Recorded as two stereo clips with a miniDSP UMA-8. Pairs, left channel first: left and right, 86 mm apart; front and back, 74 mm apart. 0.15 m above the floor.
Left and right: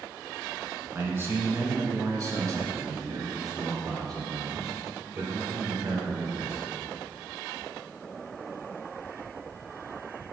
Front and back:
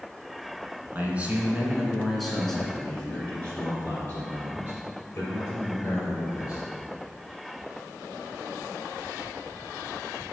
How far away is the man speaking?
About 1.5 m.